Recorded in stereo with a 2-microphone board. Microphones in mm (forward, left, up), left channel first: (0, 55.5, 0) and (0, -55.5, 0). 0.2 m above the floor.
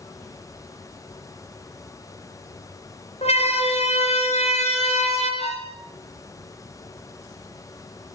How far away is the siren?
About 5.5 m.